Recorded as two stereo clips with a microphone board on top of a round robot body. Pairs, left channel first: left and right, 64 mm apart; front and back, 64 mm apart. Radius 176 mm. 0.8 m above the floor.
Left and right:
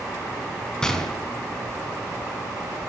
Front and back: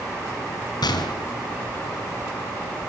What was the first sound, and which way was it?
A gunshot, 10° left.